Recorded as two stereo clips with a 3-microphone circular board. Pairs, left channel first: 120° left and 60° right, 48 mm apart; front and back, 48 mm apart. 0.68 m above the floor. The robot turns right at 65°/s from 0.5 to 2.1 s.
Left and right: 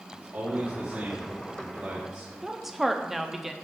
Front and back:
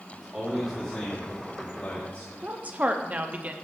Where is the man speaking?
95° right, 1.9 m; by 2.3 s 5° left, 1.9 m.